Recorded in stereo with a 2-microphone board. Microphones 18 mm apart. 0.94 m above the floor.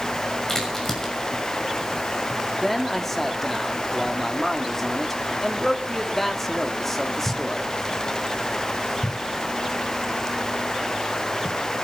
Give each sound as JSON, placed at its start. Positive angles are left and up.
{"t": 0.5, "sound": "a crack", "side_deg": 35, "distance_m": 6.0}
{"t": 2.6, "sound": "a man speaking", "side_deg": 25, "distance_m": 2.0}